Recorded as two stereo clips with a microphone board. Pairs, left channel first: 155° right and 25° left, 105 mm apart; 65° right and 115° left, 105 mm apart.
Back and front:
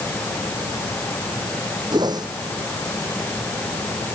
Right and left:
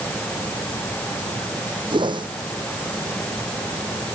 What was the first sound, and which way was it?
A whoosh, 70° left.